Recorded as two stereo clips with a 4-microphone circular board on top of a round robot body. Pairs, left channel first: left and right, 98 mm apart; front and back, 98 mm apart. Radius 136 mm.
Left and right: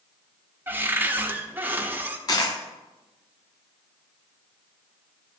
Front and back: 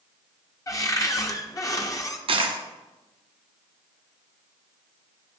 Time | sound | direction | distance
0.7 | a cupboard door | 30° right | 1.2 m
2.3 | a dropped coin | 145° left | 1.1 m